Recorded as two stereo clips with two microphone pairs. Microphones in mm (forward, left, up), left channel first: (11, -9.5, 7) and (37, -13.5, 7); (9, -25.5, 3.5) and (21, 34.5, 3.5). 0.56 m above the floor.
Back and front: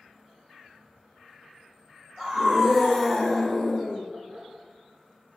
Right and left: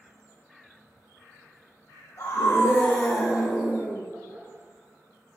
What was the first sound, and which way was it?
A scream, 70° right.